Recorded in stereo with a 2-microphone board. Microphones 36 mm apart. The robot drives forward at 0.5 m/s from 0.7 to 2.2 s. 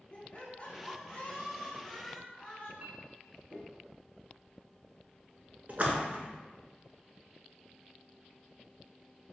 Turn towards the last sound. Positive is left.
turn(degrees=-50)  # may be behind; listen again after turning